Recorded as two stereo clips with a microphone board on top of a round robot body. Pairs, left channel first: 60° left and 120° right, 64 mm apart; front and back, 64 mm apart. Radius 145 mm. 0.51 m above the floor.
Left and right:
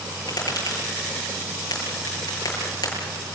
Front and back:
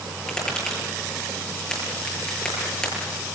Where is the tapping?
80° left, 9.5 m.